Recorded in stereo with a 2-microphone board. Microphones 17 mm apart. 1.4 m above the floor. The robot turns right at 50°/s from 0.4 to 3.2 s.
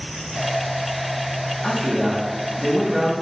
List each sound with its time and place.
1.6 s a man speaking: 170° left, 2.5 m; by 3.1 s 115° right, 2.5 m